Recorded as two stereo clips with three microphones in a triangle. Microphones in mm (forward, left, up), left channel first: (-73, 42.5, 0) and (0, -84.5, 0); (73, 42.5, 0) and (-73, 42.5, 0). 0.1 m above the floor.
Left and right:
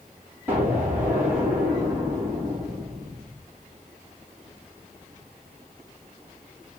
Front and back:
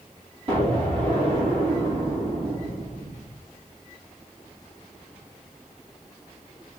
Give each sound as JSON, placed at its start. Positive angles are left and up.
{"t": 0.5, "sound": "an explosion", "azimuth_deg": -140, "distance_m": 3.5}